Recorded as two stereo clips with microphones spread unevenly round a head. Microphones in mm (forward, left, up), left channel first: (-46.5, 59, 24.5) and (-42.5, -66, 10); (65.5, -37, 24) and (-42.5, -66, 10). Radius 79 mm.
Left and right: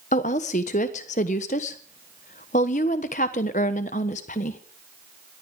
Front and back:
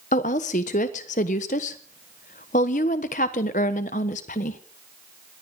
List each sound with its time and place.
0.1 s a woman speaking: 50° left, 1.3 m